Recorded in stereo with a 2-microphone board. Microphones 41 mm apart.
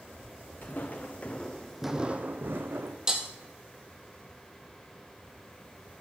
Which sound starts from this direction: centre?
Breaking glass, at 3.1 s.